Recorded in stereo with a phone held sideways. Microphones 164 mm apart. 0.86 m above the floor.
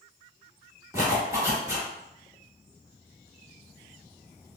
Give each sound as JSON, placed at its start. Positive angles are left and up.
{"t": 0.9, "sound": "a zipper", "side_deg": -20, "distance_m": 1.5}